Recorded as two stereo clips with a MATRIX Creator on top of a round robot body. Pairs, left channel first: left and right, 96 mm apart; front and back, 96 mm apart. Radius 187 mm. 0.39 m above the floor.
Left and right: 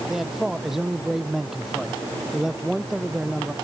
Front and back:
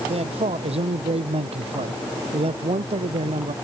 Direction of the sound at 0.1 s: 175° right.